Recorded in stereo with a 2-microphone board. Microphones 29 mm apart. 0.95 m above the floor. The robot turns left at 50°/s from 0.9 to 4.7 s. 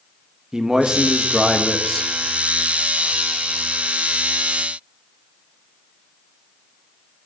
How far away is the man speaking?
About 1.2 m.